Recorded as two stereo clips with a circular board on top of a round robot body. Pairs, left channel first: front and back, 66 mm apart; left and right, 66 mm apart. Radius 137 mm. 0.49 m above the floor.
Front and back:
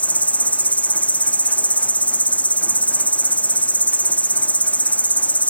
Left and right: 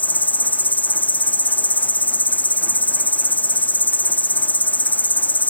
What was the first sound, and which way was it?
An insect, 50° left.